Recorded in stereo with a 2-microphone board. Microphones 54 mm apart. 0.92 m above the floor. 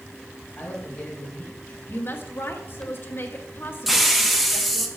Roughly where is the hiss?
Centre.